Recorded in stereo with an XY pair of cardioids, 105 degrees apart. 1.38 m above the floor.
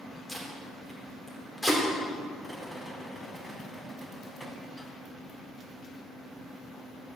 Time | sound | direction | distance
0.3 | tape being pulled | 15° left | 3.5 m
2.4 | a rattle | 15° left | 3 m